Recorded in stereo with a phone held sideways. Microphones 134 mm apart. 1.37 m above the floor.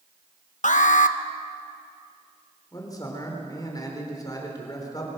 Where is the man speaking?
25° left (ahead or behind), 4.5 m.